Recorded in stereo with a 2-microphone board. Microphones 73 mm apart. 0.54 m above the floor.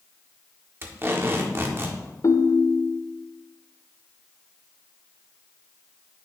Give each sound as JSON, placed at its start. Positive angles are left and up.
{"t": 0.8, "sound": "tape being pulled", "side_deg": -35, "distance_m": 1.3}
{"t": 2.2, "sound": "a ringtone", "side_deg": 50, "distance_m": 0.5}